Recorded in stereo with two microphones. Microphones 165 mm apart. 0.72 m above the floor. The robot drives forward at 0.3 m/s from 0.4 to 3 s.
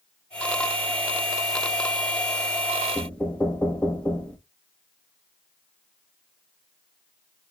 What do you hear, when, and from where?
3.0 s knocking: 5° left (ahead or behind), 0.6 m